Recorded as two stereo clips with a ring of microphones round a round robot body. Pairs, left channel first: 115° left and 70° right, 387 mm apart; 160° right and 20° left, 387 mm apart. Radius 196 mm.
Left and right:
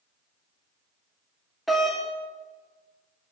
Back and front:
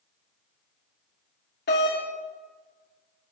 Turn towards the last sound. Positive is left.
turn(degrees=-155)